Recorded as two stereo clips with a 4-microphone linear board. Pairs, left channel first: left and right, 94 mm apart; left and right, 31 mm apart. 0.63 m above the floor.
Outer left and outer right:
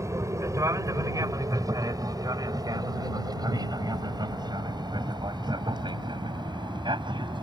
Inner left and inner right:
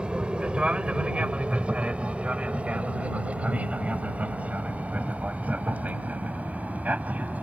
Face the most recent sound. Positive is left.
turn(degrees=-55)  # may be behind; listen again after turning